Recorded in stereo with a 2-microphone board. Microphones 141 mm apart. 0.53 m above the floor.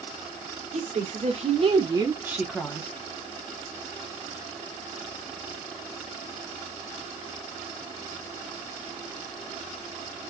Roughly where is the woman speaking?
Right.